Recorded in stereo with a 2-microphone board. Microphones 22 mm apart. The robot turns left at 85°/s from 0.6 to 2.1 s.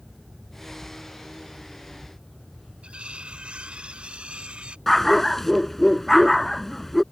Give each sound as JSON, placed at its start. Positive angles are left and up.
{"t": 2.8, "sound": "cutlery clinking", "side_deg": -65}
{"t": 4.9, "sound": "a dog barking", "side_deg": 10}